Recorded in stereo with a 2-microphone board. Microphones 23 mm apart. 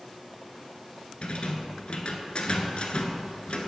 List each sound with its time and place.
1.2 s a rattle: 55° left (ahead or behind), 0.7 m